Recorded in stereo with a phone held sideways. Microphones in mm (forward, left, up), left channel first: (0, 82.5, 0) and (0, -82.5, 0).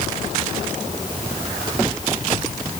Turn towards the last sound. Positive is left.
No sound to turn to.